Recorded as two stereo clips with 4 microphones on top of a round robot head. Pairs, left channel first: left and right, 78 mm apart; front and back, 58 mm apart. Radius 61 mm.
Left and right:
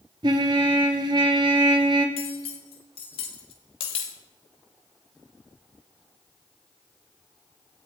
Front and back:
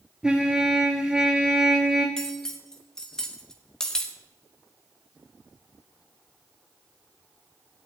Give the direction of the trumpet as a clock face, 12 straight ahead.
3 o'clock.